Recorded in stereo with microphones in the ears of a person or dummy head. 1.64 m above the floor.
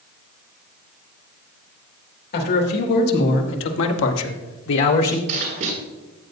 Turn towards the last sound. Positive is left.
turn(degrees=-50)  # may be behind; listen again after turning